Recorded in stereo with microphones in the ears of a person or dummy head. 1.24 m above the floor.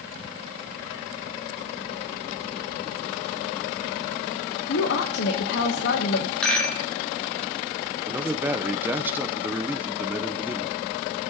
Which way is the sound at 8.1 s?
10° right (ahead or behind).